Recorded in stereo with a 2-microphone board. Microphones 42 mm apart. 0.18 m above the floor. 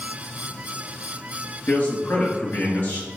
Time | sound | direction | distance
1.7 | a man speaking | 55° left (ahead or behind) | 2.5 m